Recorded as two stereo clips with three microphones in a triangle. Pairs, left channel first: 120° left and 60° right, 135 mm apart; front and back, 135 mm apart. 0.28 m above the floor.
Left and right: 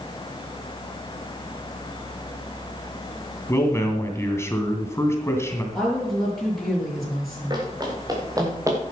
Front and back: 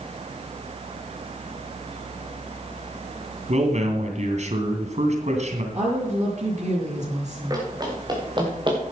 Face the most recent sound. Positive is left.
turn(degrees=-125)